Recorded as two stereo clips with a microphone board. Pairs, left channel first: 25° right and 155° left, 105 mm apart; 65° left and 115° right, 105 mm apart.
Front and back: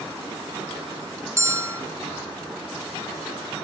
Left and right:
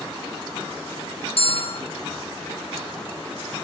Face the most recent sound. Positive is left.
turn(degrees=95)